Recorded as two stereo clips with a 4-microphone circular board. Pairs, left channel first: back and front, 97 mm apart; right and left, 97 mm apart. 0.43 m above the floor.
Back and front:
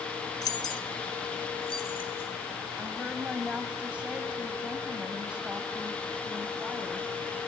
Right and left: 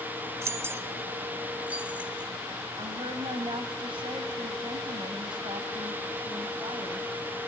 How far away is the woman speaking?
About 2.5 m.